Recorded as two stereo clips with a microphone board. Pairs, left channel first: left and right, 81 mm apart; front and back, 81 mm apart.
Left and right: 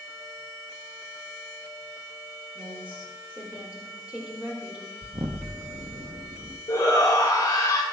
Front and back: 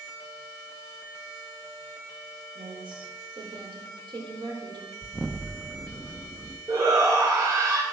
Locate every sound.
2.5 s a woman speaking: 165° right, 3.5 m
5.0 s an explosion: 95° right, 1.0 m
6.7 s a shout: 135° left, 1.9 m